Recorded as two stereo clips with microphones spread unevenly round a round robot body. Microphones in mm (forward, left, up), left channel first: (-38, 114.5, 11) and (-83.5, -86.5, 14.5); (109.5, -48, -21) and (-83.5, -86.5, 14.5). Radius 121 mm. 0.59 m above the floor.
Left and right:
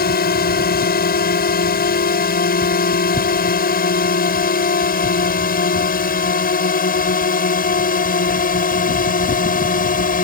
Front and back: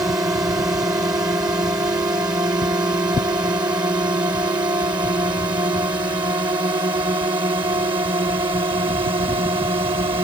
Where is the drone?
110° left; by 10.2 s 120° left.